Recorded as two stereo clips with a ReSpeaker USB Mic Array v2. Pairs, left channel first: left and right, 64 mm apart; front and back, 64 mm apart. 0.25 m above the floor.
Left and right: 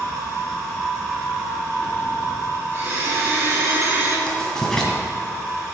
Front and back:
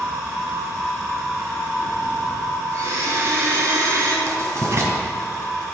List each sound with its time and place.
2.7 s a blender: 140° right, 3 m
4.3 s writing: 170° left, 2 m